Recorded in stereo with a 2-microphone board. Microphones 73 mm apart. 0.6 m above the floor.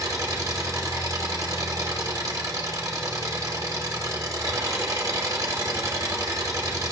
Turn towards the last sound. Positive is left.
turn(degrees=-55)  # may be behind; listen again after turning